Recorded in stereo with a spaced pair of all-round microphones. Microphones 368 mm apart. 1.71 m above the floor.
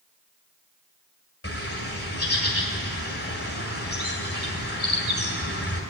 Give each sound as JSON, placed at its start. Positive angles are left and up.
{"t": 1.4, "sound": "a bird", "side_deg": 40, "distance_m": 1.9}